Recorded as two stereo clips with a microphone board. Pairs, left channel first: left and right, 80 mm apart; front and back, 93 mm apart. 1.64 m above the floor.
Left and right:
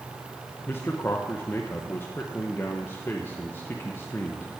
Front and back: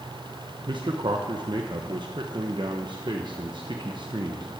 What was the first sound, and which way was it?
A man speaking, 150° left.